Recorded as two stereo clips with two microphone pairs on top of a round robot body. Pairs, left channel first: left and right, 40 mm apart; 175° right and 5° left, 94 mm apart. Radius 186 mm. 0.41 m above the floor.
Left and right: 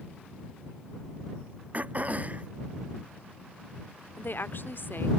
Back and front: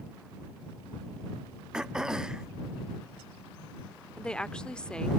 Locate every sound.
1.7 s throat clearing: 85° right
4.2 s a woman speaking: 110° left